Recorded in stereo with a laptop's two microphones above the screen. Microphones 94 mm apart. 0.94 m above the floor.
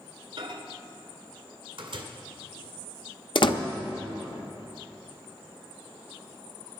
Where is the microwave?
60° right (ahead or behind), 2 m.